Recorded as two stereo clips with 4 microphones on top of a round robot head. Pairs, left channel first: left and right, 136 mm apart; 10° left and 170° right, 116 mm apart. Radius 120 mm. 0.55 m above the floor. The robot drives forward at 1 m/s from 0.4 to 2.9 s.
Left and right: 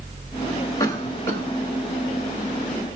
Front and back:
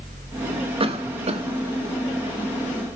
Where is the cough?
155° left, 1.5 m; by 1.4 s 165° left, 2 m.